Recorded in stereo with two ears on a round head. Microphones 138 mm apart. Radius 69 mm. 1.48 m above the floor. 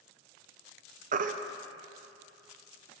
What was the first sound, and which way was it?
A baby crying, 50° right (ahead or behind).